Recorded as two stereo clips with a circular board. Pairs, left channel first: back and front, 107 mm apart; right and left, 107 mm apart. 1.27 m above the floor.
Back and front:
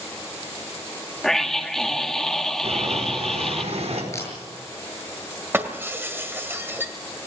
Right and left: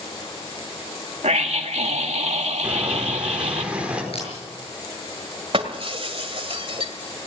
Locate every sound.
1.2 s a scream: 95° left, 2 m
2.6 s boiling: 10° left, 4.5 m
4.1 s a camera shutter: 115° right, 7 m
5.5 s breaking glass: 65° left, 1.9 m